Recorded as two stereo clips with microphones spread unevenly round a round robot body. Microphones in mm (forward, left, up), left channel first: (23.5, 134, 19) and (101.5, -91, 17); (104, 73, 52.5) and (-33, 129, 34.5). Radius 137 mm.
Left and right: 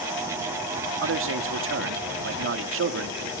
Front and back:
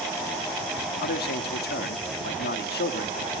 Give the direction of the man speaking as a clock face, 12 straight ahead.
1 o'clock.